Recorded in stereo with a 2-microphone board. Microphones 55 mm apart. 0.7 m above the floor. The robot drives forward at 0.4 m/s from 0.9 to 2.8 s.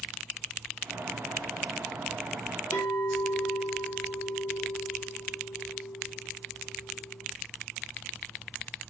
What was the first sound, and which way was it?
A clink, 80° left.